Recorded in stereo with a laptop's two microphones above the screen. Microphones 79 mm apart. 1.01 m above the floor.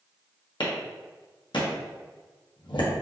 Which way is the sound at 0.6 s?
80° left.